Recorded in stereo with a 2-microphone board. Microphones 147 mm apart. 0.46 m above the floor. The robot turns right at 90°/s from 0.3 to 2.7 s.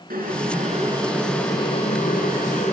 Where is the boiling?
90° right, 4.5 m; by 2.7 s 130° left, 4.5 m.